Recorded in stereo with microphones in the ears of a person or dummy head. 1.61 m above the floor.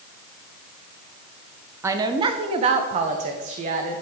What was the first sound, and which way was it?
A woman speaking, 10° right (ahead or behind).